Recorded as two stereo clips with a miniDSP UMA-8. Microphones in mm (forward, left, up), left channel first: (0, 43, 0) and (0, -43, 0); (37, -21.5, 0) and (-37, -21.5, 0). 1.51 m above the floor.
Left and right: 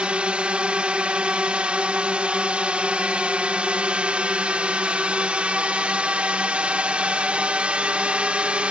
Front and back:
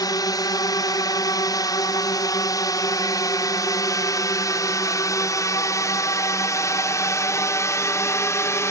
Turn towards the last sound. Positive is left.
turn(degrees=-20)